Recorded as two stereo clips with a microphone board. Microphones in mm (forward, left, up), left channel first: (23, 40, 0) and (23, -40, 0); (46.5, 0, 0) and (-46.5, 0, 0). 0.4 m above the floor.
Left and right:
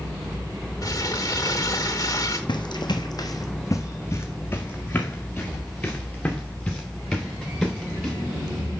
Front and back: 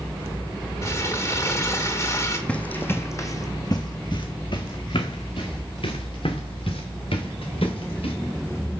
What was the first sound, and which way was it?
Crumpling, 55° left.